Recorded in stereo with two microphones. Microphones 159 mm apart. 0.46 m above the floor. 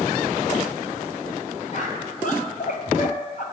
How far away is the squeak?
About 1.2 m.